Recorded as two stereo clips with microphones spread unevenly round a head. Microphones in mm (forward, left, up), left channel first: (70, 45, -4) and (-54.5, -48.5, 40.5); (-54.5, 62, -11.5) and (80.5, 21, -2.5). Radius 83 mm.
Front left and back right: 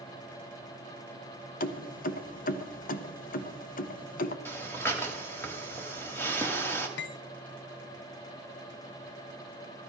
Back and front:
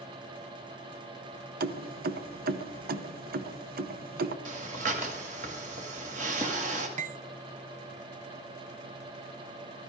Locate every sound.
1.6 s keys jangling: straight ahead, 0.6 m
4.5 s breathing: 50° right, 1.5 m
7.0 s cutlery clinking: 20° left, 0.5 m